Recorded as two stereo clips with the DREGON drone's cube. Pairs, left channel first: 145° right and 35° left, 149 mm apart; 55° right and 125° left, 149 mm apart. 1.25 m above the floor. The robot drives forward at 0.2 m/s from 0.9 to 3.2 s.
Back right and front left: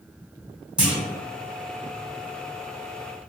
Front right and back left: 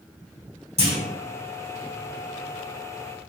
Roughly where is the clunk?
Behind left.